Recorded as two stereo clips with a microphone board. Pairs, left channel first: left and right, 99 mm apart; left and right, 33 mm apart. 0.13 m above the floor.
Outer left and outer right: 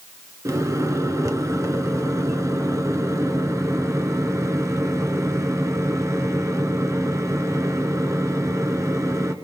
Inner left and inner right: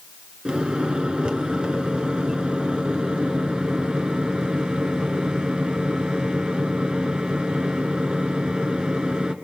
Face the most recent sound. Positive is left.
turn(degrees=-30)  # may be behind; listen again after turning